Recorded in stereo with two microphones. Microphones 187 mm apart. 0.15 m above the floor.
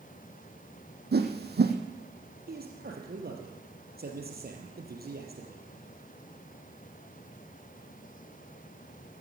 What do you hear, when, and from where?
1.1 s a whoosh: 65° right (ahead or behind), 1.7 m
2.5 s a man speaking: 60° right (ahead or behind), 3.5 m